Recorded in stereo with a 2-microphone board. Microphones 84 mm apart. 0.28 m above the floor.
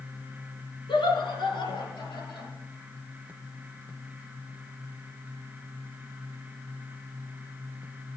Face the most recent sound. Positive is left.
turn(degrees=75)  # may be behind; listen again after turning